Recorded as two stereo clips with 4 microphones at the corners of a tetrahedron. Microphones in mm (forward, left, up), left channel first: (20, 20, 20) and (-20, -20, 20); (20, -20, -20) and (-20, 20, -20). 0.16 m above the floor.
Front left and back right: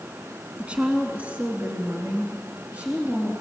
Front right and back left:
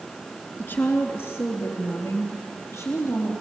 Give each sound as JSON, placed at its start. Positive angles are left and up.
{"t": 0.6, "sound": "a woman speaking", "azimuth_deg": -75, "distance_m": 2.0}